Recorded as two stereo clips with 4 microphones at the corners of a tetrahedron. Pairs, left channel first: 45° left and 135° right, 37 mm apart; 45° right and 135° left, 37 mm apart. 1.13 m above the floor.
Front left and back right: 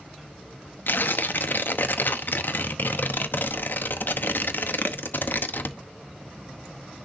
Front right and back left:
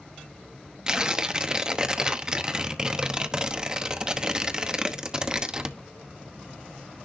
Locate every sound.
0.9 s tearing paper: 65° left, 0.9 m